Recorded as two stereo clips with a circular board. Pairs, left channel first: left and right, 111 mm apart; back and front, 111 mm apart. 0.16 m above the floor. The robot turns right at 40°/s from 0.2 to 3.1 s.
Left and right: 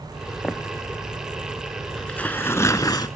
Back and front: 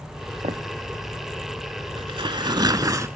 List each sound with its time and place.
0.4 s footsteps: 10° left, 1.3 m; by 0.6 s 15° left, 1.3 m
2.0 s tearing paper: 5° left, 0.7 m; by 3.1 s 50° left, 0.7 m